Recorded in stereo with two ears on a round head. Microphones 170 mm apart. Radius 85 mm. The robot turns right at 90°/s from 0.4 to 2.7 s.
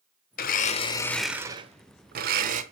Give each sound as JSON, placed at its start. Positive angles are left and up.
{"t": 0.4, "sound": "a blender", "azimuth_deg": 105, "distance_m": 0.8}